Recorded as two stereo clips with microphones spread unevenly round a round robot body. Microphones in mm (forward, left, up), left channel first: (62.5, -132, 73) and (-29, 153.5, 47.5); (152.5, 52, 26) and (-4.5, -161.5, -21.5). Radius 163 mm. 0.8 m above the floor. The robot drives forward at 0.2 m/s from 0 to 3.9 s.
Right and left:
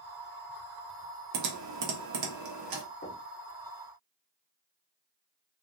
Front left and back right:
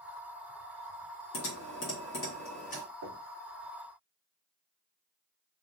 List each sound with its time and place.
1.3 s typing on a keyboard: 105° left, 0.9 m; by 2.8 s 125° left, 1.0 m
3.0 s knocking: 135° right, 0.9 m; by 3.2 s 140° right, 0.9 m